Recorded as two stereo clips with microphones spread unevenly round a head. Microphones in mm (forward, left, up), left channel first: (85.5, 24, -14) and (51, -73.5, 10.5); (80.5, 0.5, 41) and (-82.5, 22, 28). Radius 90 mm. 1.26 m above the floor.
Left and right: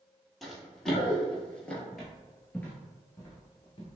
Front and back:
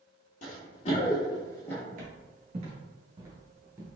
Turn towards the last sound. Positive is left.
turn(degrees=90)